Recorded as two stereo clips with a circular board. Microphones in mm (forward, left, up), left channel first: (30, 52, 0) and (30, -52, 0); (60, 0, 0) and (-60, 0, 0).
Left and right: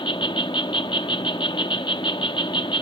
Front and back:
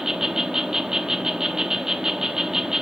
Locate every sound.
0.0 s an insect: 95° left, 1.0 m